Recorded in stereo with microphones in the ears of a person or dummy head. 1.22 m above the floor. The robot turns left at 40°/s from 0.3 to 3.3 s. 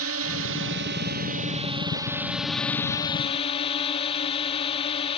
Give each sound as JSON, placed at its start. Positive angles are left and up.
{"t": 0.0, "sound": "a drone", "azimuth_deg": -90}